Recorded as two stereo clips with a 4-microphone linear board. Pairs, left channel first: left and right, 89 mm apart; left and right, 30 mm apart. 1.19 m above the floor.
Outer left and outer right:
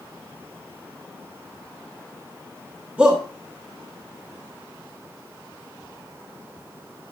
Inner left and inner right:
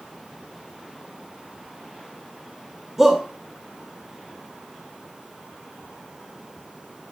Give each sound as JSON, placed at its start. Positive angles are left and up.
{"t": 3.0, "sound": "a shout", "side_deg": -10, "distance_m": 2.0}